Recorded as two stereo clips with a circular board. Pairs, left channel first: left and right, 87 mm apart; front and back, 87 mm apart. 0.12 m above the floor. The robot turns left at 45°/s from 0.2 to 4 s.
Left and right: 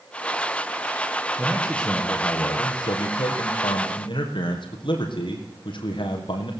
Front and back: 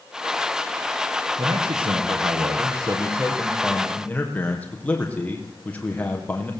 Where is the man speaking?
170° right, 4.5 m; by 6.5 s 70° left, 4.5 m.